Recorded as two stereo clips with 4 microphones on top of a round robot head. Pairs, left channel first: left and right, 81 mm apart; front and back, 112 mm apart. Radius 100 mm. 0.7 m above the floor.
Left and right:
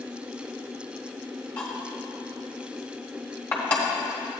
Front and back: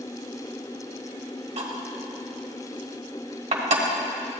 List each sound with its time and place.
1.6 s cutlery clinking: 165° left, 1.4 m